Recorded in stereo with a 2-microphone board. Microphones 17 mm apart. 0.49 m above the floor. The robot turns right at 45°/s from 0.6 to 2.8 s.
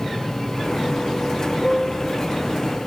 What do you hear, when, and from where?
1.6 s a piano: 25° left (ahead or behind), 0.9 m; by 2.1 s 15° left (ahead or behind), 0.9 m